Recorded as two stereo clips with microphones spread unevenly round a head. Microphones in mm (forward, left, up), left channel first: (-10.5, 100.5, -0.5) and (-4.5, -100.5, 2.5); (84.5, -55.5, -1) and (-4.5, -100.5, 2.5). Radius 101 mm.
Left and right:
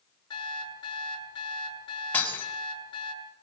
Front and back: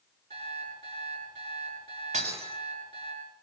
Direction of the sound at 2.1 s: 175° left.